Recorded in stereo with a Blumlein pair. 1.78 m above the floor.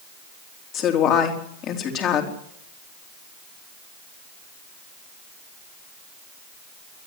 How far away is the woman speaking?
About 3.5 m.